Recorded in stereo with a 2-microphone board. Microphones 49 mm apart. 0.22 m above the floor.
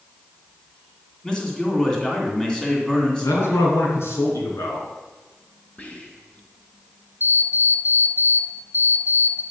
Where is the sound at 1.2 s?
15° left (ahead or behind), 2.5 m.